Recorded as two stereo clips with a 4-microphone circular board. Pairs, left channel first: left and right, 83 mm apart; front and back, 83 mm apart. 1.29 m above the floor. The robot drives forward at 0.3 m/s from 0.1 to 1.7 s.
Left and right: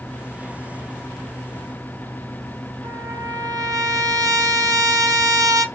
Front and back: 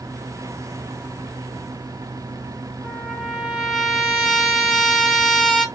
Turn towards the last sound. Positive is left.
turn(degrees=-105)